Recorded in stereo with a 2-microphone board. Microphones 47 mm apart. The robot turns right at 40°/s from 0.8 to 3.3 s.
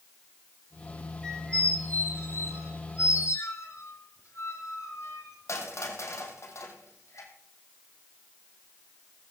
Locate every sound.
1.2 s a squeak: 15° left (ahead or behind), 3 m; by 7.3 s 75° left (ahead or behind), 3 m